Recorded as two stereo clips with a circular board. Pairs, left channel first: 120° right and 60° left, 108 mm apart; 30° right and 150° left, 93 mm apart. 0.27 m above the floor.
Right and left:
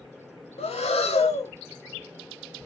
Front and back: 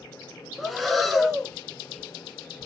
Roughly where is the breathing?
Behind right.